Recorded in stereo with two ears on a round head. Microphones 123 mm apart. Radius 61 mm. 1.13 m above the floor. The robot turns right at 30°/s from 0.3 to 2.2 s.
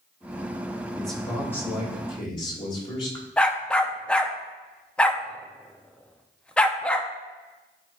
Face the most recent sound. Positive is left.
turn(degrees=5)  # may be behind; listen again after turning